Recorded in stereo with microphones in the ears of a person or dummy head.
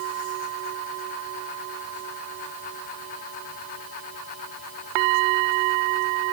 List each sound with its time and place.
Only background noise.